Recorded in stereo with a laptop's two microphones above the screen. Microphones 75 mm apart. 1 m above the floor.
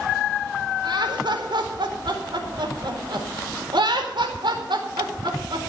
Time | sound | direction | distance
0.8 | laughter | 80° right | 4 m